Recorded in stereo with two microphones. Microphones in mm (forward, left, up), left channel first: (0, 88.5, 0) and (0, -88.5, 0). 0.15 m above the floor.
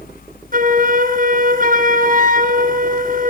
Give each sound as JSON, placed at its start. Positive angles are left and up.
{"t": 0.5, "sound": "a flute", "side_deg": -50, "distance_m": 2.5}